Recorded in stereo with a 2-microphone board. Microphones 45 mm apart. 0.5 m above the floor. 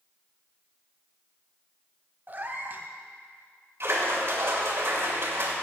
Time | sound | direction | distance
2.3 | a cat meowing | 40° right (ahead or behind) | 1.0 m
3.8 | a splash | 60° right (ahead or behind) | 2.5 m